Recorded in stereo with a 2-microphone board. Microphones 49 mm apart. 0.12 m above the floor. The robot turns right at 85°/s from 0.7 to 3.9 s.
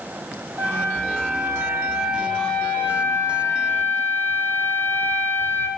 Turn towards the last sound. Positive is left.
turn(degrees=135)